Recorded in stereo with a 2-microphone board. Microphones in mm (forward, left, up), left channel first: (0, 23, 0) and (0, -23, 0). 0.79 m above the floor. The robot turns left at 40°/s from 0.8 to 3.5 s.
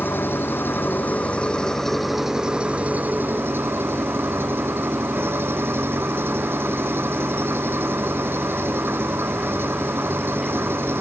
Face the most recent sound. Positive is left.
turn(degrees=-60)